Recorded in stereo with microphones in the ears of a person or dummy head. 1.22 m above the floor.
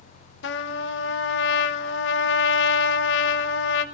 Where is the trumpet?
75° left (ahead or behind), 0.8 m.